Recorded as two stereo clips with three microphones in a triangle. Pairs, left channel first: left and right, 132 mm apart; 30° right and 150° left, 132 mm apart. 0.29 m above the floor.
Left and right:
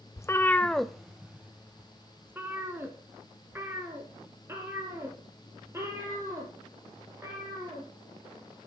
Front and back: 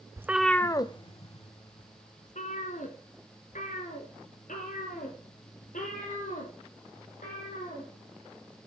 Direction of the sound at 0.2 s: 115° left.